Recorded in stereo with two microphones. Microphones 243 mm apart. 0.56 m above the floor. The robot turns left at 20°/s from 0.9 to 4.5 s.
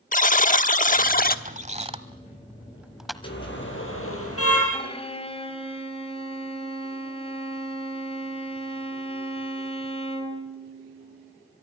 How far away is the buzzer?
About 1.0 m.